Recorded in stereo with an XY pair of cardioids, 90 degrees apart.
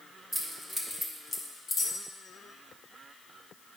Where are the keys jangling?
20° right, 2.5 m; by 1.9 s 40° left, 2.0 m.